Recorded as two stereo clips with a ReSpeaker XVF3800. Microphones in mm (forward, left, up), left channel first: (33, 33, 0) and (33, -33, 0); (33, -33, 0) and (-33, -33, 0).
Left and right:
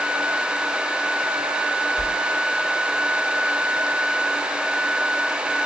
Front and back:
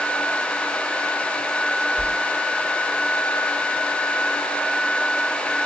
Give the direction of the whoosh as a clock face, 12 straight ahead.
2 o'clock.